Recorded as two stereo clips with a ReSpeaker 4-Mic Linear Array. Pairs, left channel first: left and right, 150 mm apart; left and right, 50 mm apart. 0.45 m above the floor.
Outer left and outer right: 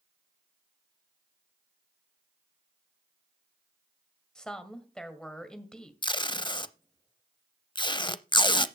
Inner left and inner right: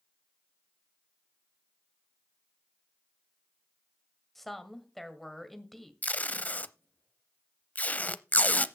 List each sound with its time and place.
4.3 s a woman speaking: 5° left (ahead or behind), 1.9 m
6.0 s tape being pulled: 30° left (ahead or behind), 0.5 m